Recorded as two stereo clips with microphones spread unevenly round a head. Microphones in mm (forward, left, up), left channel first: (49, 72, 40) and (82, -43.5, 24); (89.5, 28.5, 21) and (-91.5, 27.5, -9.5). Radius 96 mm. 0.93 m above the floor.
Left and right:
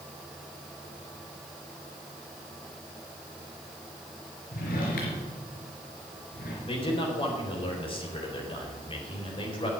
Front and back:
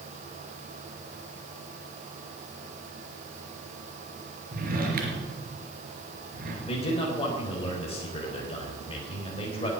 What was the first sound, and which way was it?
A drawer, 135° left.